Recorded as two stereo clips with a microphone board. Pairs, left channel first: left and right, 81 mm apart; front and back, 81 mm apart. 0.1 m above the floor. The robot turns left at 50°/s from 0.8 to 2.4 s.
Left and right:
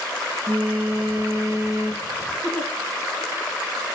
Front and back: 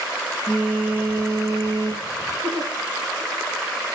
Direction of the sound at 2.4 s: Straight behind.